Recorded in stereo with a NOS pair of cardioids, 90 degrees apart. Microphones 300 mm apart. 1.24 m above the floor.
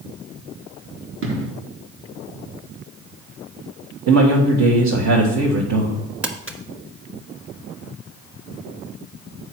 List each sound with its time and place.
1.2 s an explosion: 45° right, 1.8 m
4.1 s a man speaking: 60° right, 1.9 m
6.2 s crumpling: 5° right, 1.4 m